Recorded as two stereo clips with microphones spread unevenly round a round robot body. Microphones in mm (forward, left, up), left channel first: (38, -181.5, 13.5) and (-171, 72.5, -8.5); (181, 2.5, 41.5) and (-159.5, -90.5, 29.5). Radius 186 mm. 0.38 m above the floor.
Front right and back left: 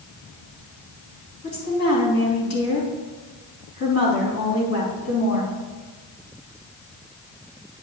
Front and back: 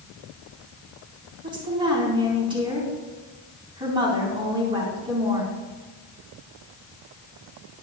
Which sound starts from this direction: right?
A woman speaking, at 1.4 s.